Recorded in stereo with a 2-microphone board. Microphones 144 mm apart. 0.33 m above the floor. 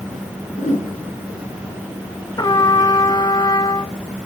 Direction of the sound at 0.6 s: 60° left (ahead or behind).